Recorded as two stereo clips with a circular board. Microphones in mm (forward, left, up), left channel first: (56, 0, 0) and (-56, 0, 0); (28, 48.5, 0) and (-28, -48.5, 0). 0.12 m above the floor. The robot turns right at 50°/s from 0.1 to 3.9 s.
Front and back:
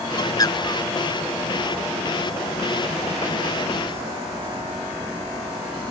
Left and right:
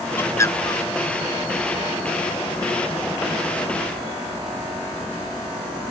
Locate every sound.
0.2 s a bird: 5° left; by 0.9 s 40° left